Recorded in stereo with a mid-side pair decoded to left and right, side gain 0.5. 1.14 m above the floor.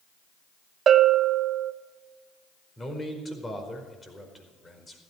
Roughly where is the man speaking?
Ahead left.